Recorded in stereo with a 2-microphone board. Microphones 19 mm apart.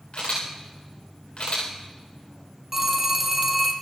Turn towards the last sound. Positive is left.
turn(degrees=-10)  # may be behind; listen again after turning